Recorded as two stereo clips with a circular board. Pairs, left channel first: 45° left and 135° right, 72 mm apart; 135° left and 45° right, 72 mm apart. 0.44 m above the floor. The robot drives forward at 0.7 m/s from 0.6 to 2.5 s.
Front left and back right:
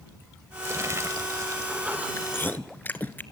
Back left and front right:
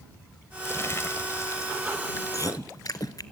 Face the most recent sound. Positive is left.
turn(degrees=105)